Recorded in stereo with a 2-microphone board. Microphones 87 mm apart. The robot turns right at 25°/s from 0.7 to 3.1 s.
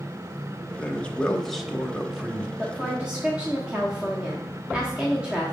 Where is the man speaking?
155° left, 0.9 m; by 2.5 s 160° right, 0.9 m.